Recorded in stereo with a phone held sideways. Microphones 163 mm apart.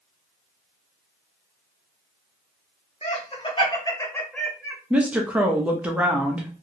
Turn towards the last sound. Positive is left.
turn(degrees=-10)  # may be behind; listen again after turning